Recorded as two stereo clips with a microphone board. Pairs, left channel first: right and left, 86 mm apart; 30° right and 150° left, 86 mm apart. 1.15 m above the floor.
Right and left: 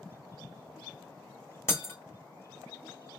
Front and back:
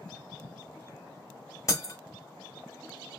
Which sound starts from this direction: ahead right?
Breaking glass, at 1.7 s.